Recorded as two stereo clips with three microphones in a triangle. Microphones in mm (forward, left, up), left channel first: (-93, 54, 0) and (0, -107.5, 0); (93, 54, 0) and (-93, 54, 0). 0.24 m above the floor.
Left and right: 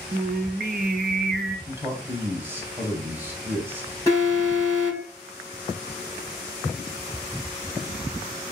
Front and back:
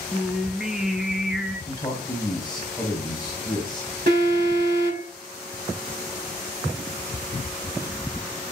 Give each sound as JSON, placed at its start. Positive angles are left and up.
{"t": 0.1, "sound": "singing", "azimuth_deg": -95, "distance_m": 0.6}
{"t": 1.7, "sound": "a man speaking", "azimuth_deg": 0, "distance_m": 1.3}
{"t": 4.1, "sound": "an alarm", "azimuth_deg": -165, "distance_m": 4.0}